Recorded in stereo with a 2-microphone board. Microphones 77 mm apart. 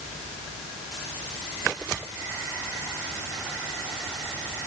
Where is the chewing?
No chewing in this recording.